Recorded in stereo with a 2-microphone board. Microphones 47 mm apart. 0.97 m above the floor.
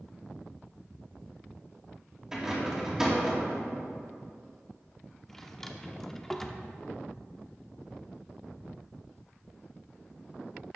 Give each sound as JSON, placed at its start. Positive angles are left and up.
{"t": 2.3, "sound": "a rattle", "side_deg": -10, "distance_m": 2.5}
{"t": 5.3, "sound": "a drawer", "side_deg": 5, "distance_m": 0.7}